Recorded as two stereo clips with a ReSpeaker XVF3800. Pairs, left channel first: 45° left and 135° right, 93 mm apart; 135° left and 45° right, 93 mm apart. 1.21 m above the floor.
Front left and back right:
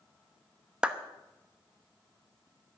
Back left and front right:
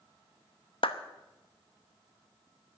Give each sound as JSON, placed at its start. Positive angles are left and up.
{"t": 0.8, "sound": "a clap", "azimuth_deg": 145, "distance_m": 0.9}